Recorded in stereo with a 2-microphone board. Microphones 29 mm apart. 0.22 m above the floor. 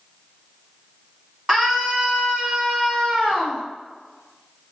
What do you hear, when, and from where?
1.5 s a scream: 15° right (ahead or behind), 1.8 m; by 3.6 s 25° right (ahead or behind), 1.3 m